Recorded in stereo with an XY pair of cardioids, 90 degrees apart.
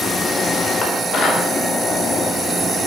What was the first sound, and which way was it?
Dishes clattering, 60° left.